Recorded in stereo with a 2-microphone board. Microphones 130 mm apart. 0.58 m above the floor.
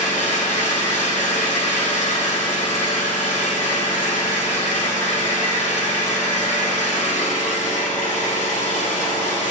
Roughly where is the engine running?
Left.